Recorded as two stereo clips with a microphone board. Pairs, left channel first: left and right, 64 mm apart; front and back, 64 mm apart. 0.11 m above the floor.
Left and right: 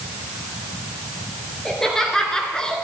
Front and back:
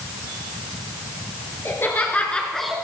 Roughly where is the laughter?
Ahead.